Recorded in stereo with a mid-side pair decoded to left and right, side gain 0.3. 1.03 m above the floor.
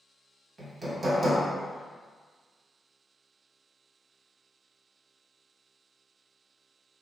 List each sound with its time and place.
0.6 s hammering: 50° right, 1.0 m